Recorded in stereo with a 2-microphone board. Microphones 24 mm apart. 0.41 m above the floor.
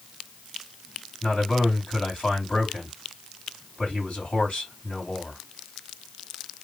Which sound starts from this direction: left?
A man speaking, at 1.2 s.